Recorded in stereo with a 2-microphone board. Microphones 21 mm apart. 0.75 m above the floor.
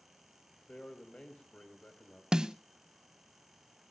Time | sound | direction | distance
0.7 | a man speaking | 55° left (ahead or behind) | 4.5 m
2.3 | a snare drum | 30° right (ahead or behind) | 0.6 m